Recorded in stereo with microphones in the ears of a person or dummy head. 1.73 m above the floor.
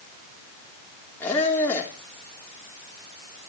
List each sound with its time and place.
1.2 s a squeak: 15° left (ahead or behind), 3.5 m